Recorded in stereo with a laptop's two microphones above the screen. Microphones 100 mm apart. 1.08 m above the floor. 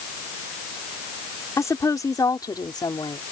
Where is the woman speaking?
30° left (ahead or behind); by 3.2 s 50° left (ahead or behind).